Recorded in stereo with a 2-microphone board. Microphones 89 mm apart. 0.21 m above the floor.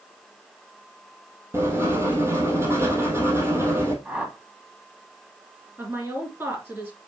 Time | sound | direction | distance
1.5 | writing | 30° right (ahead or behind) | 2.5 m
4.0 | a whoosh | 15° right (ahead or behind) | 1.7 m
5.8 | a woman speaking | 25° right (ahead or behind) | 3.5 m